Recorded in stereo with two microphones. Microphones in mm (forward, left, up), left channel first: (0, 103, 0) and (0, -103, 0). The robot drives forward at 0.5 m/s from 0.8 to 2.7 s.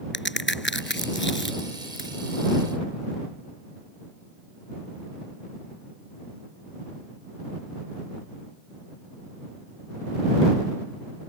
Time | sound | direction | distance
0.1 | a crack | 65° left (ahead or behind) | ?